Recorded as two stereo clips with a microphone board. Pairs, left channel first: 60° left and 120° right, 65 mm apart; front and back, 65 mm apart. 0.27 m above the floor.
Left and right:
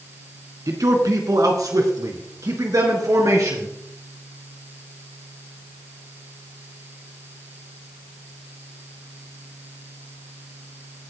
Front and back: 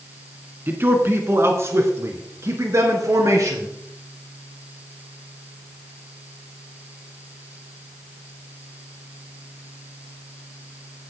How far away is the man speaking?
About 2.5 m.